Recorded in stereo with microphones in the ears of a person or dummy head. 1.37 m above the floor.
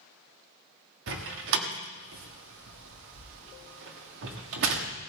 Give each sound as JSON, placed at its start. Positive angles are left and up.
{"t": 1.1, "sound": "a door slam", "side_deg": -70, "distance_m": 1.5}